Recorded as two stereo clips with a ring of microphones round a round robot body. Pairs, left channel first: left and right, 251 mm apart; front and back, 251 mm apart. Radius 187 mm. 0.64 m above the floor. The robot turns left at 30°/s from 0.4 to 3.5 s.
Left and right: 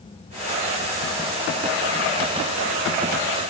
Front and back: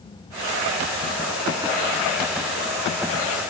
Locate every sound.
Only background noise.